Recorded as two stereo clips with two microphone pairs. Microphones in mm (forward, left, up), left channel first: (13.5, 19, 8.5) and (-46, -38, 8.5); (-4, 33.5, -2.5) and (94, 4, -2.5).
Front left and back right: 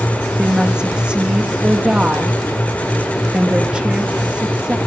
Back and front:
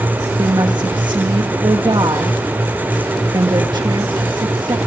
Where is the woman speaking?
60° right, 1.5 m.